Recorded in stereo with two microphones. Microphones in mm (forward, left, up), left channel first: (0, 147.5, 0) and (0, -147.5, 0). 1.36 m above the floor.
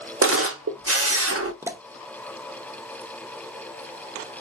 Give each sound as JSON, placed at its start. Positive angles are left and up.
{"t": 0.2, "sound": "a camera shutter", "side_deg": -50, "distance_m": 0.7}
{"t": 1.6, "sound": "a pop", "side_deg": -10, "distance_m": 0.6}